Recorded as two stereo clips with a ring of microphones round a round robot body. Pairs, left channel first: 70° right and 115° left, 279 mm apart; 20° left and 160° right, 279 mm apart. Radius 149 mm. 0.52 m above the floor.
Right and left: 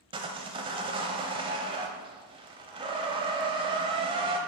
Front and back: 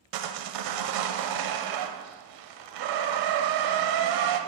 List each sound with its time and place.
0.1 s sawing: 175° right, 0.7 m